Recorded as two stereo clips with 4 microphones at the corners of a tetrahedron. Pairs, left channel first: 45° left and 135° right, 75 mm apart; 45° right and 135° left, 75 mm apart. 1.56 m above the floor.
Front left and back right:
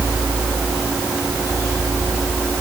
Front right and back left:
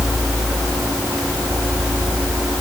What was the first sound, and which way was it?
Only background noise.